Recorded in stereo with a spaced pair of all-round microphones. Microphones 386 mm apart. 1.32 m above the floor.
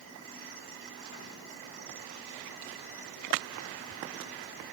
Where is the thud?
No thud in this recording.